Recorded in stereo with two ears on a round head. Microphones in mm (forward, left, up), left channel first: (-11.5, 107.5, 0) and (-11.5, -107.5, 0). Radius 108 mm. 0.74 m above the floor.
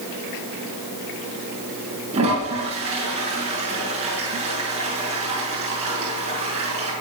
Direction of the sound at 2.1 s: 25° right (ahead or behind).